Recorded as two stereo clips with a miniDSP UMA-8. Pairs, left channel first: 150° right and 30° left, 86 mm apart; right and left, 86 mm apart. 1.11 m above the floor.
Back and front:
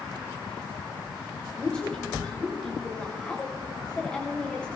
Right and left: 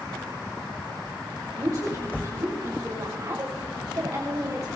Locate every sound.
1.6 s a woman speaking: 135° left, 3 m